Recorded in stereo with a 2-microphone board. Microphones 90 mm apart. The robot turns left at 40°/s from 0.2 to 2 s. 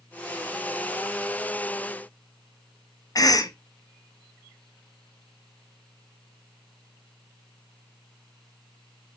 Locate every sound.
3.1 s a cough: 45° left (ahead or behind), 0.6 m